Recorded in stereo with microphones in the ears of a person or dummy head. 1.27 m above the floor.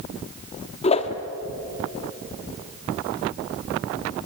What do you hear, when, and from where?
0.8 s a whoosh: 35° left (ahead or behind), 1.4 m